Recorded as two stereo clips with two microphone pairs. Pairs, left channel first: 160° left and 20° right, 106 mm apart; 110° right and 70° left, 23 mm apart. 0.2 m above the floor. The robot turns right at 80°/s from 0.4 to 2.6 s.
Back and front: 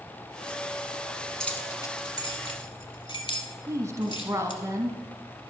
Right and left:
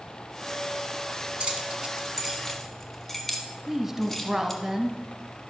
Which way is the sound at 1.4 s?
75° left.